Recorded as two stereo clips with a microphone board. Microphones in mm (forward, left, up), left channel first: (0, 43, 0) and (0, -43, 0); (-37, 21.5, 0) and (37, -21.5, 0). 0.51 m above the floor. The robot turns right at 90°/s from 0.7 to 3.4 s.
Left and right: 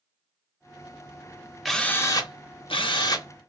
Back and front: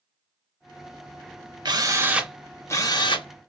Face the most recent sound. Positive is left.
turn(degrees=155)